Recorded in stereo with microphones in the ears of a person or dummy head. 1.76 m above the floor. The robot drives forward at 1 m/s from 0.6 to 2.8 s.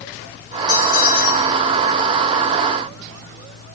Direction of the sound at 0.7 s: 45° left (ahead or behind).